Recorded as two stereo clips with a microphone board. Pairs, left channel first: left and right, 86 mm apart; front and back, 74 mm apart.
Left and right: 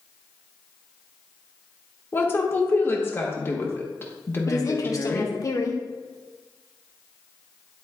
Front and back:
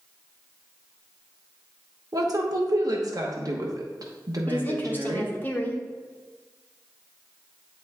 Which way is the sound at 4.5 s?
55° left.